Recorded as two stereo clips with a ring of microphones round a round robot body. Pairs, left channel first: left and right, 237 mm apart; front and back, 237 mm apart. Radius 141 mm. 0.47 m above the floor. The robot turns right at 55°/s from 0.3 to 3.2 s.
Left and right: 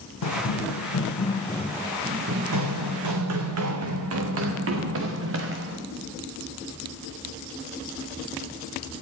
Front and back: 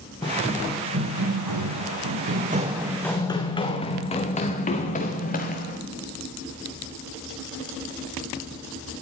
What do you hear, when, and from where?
0.2 s running footsteps: 75° left, 1.8 m; by 5.8 s 55° right, 3 m